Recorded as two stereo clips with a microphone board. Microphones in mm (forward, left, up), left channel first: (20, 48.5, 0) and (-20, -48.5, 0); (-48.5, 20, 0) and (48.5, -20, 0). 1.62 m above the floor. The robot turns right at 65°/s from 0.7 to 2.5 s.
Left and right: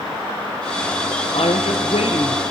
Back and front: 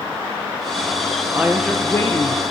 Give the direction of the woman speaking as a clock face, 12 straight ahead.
10 o'clock.